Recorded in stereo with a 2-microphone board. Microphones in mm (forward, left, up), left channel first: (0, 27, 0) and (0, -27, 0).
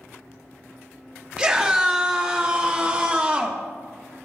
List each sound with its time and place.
1.4 s a scream: 20° right (ahead or behind), 1.8 m; by 3.6 s 25° right (ahead or behind), 0.9 m